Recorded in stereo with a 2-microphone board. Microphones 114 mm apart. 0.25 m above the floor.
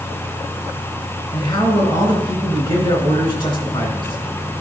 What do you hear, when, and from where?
1.3 s a man speaking: 45° left (ahead or behind), 3 m